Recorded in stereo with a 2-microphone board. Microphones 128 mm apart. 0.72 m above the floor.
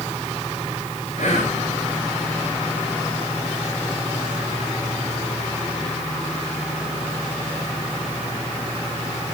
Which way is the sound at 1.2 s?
75° left (ahead or behind).